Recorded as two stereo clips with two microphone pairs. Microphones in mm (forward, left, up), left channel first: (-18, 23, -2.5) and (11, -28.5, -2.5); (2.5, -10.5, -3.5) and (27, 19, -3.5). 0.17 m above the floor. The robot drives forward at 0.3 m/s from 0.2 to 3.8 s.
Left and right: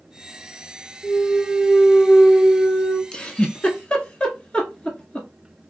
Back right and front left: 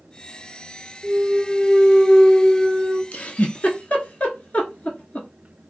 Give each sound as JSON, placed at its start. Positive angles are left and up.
{"t": 1.0, "sound": "a clunk", "azimuth_deg": 75, "distance_m": 0.5}
{"t": 3.1, "sound": "a giggle", "azimuth_deg": -175, "distance_m": 0.5}